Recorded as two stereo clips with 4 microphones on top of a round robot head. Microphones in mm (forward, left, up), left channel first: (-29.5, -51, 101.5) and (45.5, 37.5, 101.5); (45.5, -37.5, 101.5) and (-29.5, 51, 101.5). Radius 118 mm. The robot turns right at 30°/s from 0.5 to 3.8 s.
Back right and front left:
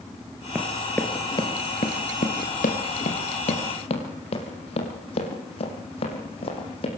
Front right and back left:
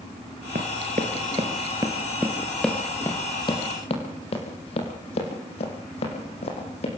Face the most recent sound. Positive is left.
turn(degrees=-90)